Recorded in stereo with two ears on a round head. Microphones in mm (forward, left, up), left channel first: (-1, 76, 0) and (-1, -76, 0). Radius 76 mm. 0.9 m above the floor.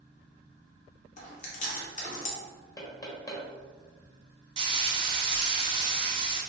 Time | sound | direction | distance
1.2 | chewing | 45° left (ahead or behind) | 1.0 m
2.8 | knocking | 20° left (ahead or behind) | 1.1 m
4.6 | frying | 30° right (ahead or behind) | 0.8 m